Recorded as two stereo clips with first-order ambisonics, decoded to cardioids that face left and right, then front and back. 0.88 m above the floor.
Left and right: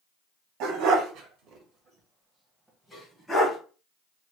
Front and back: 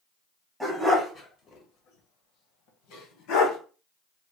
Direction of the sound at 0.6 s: 85° right.